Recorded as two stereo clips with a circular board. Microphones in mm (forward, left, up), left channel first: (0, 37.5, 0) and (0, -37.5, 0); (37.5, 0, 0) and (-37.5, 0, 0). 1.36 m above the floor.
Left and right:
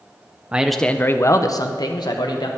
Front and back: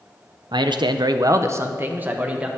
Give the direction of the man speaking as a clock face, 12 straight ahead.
5 o'clock.